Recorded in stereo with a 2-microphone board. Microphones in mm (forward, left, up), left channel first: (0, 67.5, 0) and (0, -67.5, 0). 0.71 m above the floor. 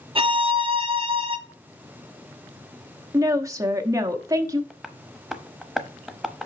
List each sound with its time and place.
0.1 s a violin: 40° right (ahead or behind), 0.8 m
3.1 s a woman speaking: 25° right (ahead or behind), 1.0 m
4.7 s tapping: centre (ahead or behind), 0.8 m